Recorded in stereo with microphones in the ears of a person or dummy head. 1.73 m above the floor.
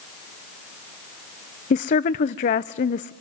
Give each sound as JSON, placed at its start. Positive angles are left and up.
{"t": 1.7, "sound": "a woman speaking", "side_deg": 40, "distance_m": 0.6}